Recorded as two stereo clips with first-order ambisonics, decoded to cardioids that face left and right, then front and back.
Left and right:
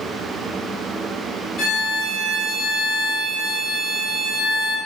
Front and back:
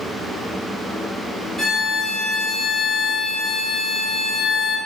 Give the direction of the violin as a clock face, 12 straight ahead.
10 o'clock.